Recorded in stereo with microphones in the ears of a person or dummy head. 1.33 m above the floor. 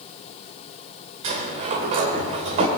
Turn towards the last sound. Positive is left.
turn(degrees=-35)  # may be behind; listen again after turning